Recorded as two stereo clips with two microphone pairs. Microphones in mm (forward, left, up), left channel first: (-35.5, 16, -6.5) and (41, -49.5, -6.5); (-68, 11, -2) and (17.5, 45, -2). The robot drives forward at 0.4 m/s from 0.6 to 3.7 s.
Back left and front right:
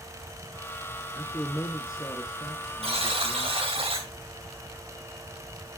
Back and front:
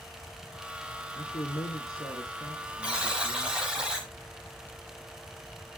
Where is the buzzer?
55° right, 5 m; by 4.1 s 60° right, 5 m.